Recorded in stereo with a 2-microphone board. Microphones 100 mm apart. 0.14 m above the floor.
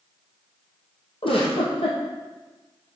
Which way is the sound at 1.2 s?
65° left (ahead or behind).